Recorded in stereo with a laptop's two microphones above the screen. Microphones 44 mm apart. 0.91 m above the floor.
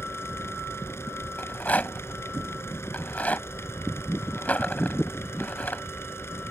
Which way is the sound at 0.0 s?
75° left (ahead or behind).